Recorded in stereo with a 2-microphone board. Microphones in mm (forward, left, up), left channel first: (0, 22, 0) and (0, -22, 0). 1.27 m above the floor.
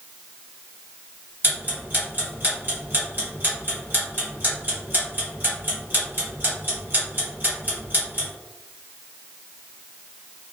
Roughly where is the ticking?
Right.